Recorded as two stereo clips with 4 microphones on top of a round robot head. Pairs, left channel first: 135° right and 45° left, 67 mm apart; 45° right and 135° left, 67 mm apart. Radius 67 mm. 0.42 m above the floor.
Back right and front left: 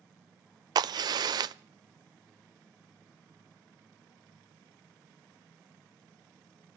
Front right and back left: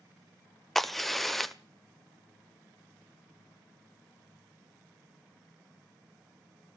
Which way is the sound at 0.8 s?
40° left.